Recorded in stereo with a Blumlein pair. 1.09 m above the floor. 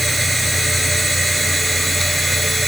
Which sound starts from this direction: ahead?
A machine running, at 0.0 s.